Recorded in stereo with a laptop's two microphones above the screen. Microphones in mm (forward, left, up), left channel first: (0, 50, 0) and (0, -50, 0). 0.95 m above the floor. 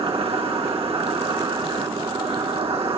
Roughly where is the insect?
Right.